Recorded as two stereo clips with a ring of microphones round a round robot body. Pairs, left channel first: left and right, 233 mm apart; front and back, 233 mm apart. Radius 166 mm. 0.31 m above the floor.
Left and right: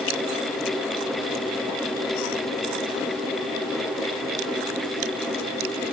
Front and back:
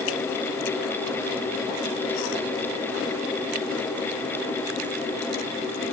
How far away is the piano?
No piano in this recording.